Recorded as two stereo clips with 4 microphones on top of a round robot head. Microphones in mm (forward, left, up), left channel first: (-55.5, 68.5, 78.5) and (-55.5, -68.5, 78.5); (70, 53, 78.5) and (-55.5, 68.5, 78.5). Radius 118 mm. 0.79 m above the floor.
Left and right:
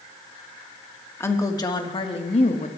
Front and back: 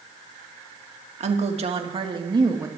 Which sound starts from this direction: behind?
A woman speaking, at 1.2 s.